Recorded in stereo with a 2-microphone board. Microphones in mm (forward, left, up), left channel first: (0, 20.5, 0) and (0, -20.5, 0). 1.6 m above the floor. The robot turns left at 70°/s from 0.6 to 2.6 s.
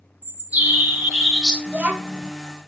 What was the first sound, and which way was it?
A bird, 95° right.